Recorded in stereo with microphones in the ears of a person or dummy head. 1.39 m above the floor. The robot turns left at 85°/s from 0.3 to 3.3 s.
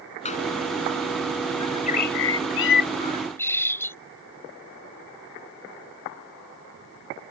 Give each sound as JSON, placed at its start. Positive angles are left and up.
{"t": 0.2, "sound": "a door slam", "side_deg": 35}
{"t": 1.6, "sound": "a bird", "azimuth_deg": 160}